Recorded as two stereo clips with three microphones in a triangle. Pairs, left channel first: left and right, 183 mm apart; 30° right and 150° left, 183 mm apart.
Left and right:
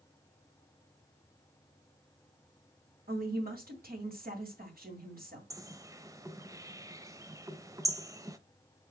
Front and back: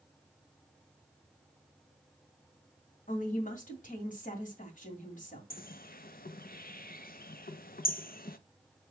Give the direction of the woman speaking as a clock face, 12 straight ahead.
2 o'clock.